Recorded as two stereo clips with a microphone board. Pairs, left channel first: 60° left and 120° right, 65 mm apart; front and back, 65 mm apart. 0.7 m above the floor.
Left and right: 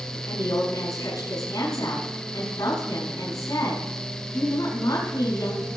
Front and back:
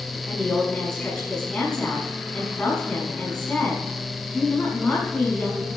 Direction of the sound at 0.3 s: 75° left.